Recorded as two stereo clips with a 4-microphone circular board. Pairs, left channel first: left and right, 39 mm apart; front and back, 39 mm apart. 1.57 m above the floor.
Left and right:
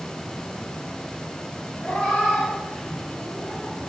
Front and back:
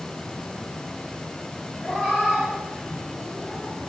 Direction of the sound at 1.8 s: 85° left.